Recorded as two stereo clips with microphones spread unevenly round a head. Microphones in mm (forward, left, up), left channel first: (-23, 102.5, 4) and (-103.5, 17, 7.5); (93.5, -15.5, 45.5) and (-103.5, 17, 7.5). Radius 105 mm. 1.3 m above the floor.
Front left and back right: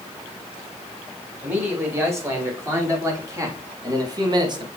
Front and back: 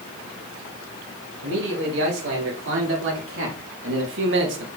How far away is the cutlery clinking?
I don't hear cutlery clinking.